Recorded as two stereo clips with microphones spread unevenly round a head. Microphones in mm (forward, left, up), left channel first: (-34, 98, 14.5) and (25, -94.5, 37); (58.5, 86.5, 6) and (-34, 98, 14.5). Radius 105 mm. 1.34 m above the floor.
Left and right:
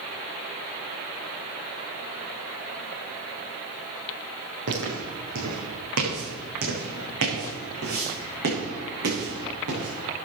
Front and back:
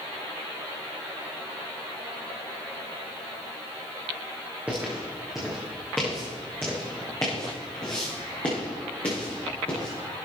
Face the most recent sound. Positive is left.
turn(degrees=-70)